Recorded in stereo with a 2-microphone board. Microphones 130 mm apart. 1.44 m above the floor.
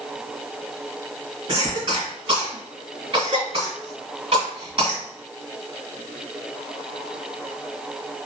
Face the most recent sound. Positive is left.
turn(degrees=-40)  # may be behind; listen again after turning